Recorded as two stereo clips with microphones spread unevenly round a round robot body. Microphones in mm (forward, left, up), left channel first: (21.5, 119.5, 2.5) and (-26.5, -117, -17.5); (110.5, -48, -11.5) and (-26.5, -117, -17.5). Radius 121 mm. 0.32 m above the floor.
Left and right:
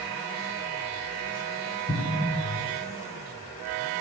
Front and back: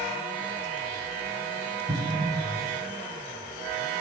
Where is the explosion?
135° left, 0.7 m.